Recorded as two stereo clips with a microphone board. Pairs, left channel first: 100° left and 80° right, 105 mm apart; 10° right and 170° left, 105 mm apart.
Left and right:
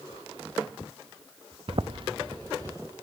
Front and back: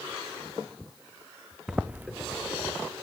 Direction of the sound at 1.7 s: 110° right.